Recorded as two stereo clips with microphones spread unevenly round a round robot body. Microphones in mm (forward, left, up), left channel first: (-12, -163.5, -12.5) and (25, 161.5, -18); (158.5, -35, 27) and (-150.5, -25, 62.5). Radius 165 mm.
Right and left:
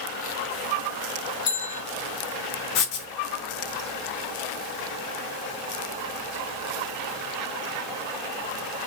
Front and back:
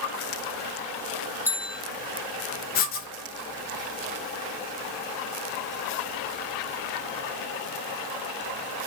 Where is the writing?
65° right, 0.8 m.